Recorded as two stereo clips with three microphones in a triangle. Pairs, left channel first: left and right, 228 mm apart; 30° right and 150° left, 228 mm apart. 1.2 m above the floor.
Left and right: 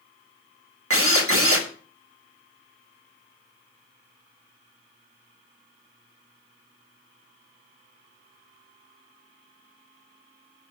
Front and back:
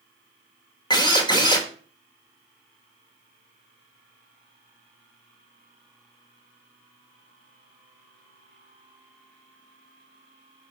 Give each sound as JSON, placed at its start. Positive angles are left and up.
{"t": 0.9, "sound": "a drill", "azimuth_deg": -100, "distance_m": 1.4}